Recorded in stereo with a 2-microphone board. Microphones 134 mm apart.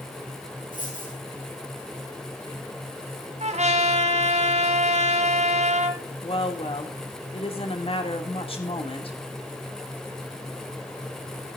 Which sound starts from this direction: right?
A trumpet, at 3.4 s.